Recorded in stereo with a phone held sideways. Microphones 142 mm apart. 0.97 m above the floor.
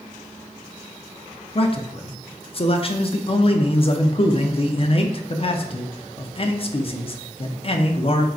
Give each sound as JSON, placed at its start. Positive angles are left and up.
{"t": 1.6, "sound": "a man speaking", "side_deg": 40, "distance_m": 0.5}